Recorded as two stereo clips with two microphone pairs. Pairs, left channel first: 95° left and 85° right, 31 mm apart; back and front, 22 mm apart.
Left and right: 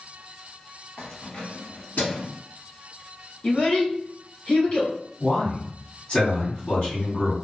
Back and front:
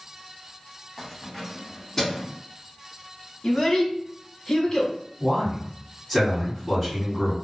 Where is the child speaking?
135° left, 0.9 m.